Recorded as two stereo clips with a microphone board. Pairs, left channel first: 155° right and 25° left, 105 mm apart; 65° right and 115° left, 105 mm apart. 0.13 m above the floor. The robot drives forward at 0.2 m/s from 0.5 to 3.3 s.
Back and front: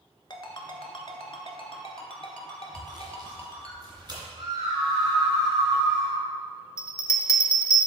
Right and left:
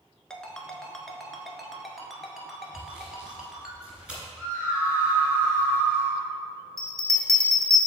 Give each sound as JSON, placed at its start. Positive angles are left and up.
{"t": 0.3, "sound": "a ringtone", "azimuth_deg": -145, "distance_m": 0.7}
{"t": 2.7, "sound": "sawing", "azimuth_deg": 35, "distance_m": 1.9}
{"t": 4.4, "sound": "a scream", "azimuth_deg": 40, "distance_m": 2.0}
{"t": 6.8, "sound": "a bell", "azimuth_deg": 155, "distance_m": 0.6}